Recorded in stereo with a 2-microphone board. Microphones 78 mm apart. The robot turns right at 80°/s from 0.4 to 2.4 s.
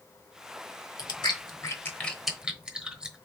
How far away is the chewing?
About 1.1 m.